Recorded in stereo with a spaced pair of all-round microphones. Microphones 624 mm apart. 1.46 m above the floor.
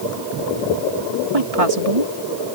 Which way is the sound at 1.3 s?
60° right (ahead or behind).